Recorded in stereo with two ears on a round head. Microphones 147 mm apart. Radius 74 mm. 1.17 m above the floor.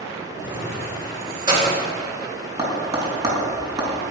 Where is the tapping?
25° right (ahead or behind), 4 m.